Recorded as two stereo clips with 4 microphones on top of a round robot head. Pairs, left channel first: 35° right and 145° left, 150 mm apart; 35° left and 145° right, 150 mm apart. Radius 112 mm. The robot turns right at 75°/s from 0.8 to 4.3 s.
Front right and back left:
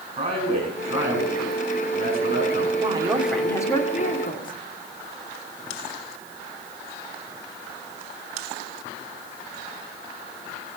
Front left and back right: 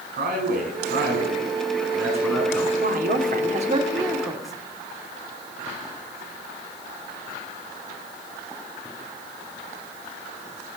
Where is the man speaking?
170° right, 6 m; by 2.7 s 25° right, 6 m.